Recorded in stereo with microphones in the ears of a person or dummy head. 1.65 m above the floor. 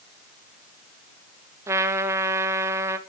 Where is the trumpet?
10° right (ahead or behind), 0.5 m.